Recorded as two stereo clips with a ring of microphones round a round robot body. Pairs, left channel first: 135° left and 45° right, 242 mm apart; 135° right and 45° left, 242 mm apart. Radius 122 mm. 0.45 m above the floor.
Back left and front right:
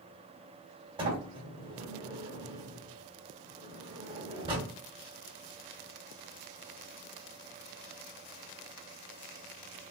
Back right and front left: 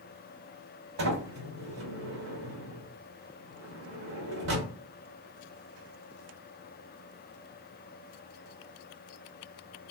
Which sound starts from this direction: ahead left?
A sliding door, at 1.0 s.